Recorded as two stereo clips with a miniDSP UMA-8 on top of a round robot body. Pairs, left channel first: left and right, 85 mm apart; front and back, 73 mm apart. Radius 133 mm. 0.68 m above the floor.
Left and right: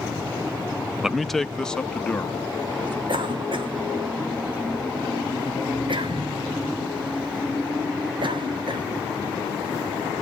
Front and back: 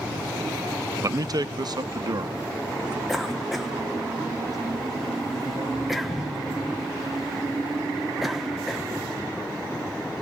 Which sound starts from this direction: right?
A cough, at 3.1 s.